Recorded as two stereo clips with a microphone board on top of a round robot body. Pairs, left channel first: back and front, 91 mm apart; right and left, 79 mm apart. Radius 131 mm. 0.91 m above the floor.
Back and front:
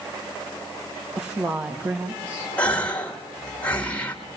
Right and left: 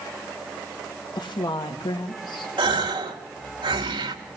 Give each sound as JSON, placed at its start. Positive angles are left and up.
{"t": 1.1, "sound": "a woman speaking", "azimuth_deg": -65, "distance_m": 1.9}
{"t": 2.6, "sound": "a gasp", "azimuth_deg": 105, "distance_m": 1.9}